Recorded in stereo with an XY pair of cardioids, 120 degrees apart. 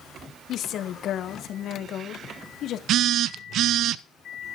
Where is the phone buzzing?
70° right, 0.5 m.